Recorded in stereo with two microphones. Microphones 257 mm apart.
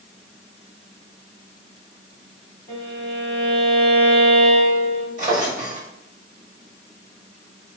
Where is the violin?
30° right (ahead or behind), 1.9 m.